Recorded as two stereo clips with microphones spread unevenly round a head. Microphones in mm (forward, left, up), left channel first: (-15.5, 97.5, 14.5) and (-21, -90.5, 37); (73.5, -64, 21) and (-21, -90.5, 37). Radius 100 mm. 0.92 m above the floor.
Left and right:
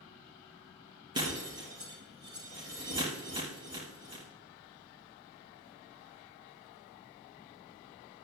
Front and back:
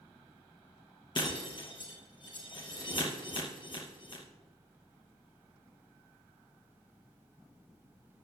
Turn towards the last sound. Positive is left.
turn(degrees=-25)